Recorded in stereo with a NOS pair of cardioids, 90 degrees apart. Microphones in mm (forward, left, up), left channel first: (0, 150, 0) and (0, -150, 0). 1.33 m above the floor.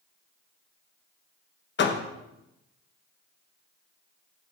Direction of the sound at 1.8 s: 40° left.